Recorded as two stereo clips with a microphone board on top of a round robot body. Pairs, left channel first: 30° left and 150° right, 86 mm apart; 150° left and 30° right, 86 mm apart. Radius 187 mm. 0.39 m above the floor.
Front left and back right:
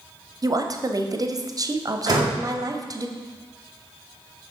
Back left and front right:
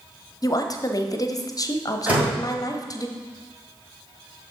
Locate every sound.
0.4 s a woman speaking: straight behind, 1.1 m
2.1 s a door slam: 105° right, 2 m